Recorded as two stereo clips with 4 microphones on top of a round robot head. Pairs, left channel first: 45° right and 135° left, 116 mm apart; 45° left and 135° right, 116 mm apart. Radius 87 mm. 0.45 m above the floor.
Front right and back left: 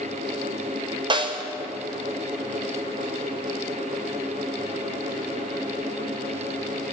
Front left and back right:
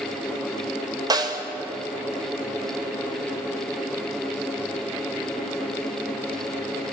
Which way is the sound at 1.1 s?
175° left.